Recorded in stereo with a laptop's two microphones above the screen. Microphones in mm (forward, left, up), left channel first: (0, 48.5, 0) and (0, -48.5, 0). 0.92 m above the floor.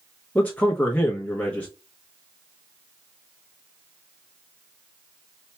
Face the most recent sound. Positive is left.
turn(degrees=15)  # may be behind; listen again after turning